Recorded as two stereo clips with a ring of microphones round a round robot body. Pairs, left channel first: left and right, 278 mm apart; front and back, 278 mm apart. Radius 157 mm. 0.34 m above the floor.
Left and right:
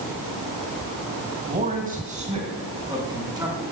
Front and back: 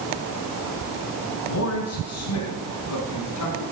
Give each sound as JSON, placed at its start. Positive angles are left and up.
{"t": 1.4, "sound": "a man speaking", "azimuth_deg": -30, "distance_m": 3.0}